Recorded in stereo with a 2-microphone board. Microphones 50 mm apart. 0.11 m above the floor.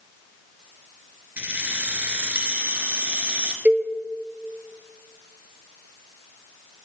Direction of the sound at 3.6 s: 35° right (ahead or behind).